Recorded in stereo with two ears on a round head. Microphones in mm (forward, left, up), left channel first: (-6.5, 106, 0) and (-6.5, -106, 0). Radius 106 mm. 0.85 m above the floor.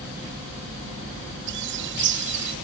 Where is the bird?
50° right (ahead or behind).